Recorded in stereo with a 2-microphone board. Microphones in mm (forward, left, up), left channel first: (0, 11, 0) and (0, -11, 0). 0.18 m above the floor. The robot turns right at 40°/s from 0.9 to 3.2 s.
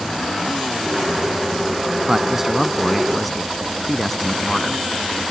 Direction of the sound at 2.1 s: 40° right.